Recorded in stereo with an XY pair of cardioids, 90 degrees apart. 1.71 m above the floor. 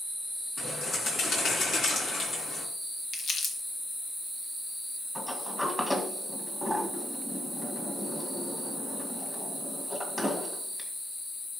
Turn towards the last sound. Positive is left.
turn(degrees=15)